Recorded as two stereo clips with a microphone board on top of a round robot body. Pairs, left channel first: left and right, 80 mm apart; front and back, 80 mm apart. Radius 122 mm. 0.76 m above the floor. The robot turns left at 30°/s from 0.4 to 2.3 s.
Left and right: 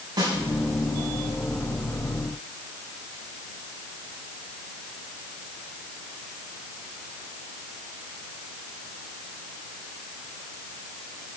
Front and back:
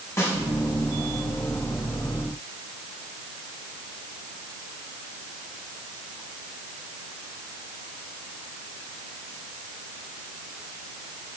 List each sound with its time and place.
0.2 s a snare drum: 55° right, 5 m